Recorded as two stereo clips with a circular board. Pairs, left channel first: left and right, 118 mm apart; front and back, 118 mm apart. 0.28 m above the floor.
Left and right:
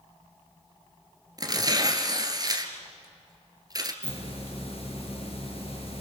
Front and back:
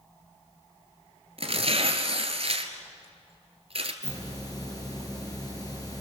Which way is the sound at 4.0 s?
55° left.